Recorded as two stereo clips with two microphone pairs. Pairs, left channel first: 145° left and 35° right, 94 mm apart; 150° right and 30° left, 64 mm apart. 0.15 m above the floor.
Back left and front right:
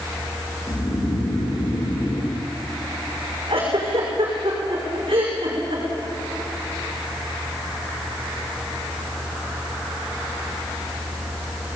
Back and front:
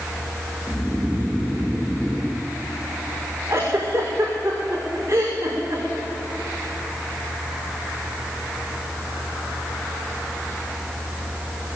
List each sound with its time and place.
0.7 s snoring: 120° left, 2 m
3.5 s a giggle: 25° right, 5.5 m